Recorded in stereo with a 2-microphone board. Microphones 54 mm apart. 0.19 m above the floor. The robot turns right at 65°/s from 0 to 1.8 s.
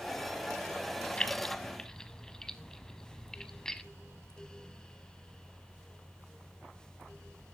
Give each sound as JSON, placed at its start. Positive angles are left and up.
{"t": 1.2, "sound": "keys jangling", "side_deg": 20, "distance_m": 1.1}